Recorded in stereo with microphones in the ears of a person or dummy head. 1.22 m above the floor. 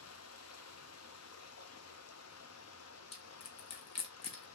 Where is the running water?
85° left, 0.8 m.